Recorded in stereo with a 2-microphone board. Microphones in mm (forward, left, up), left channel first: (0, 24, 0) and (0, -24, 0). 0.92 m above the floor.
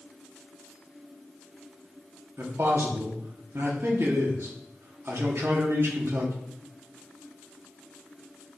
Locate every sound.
2.4 s a man speaking: 65° right (ahead or behind), 1.6 m